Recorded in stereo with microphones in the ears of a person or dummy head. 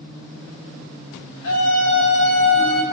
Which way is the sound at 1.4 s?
85° left.